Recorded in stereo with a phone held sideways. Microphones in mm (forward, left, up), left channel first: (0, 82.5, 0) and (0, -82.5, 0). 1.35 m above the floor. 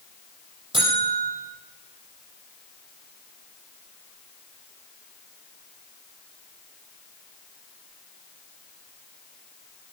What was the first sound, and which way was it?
A buzzer, 30° right (ahead or behind).